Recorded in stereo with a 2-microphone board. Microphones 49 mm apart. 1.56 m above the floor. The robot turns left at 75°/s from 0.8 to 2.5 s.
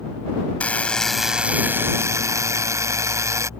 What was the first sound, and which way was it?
A buzzer, 25° left.